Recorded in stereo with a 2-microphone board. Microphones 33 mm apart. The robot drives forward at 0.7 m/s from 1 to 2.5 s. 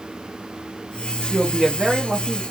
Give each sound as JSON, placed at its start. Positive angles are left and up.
{"t": 1.3, "sound": "a woman speaking", "side_deg": -15, "distance_m": 0.6}